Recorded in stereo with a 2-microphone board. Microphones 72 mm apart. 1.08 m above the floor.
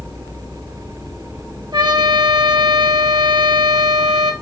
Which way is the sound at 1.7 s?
75° right (ahead or behind).